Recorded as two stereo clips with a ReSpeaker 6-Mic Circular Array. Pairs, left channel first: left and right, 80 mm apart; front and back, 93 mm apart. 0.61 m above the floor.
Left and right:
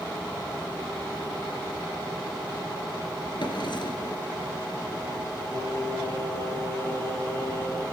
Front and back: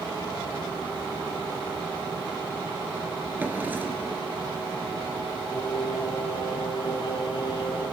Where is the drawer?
110° left, 3 m.